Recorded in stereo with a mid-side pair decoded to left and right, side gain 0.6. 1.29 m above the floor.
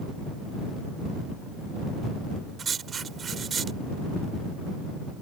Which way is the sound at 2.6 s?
35° right.